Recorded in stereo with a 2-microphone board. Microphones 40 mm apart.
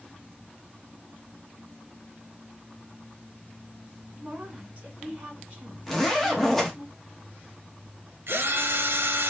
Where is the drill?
70° right (ahead or behind), 0.8 m.